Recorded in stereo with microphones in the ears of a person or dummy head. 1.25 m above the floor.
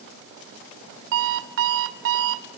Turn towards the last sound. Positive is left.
turn(degrees=-65)  # may be behind; listen again after turning